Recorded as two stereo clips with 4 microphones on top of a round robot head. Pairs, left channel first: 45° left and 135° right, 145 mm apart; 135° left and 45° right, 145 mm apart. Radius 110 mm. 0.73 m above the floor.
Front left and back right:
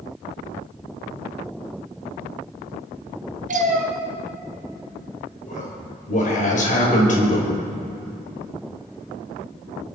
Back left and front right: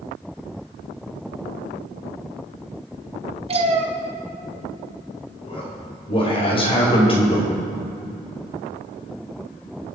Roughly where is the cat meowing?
Right.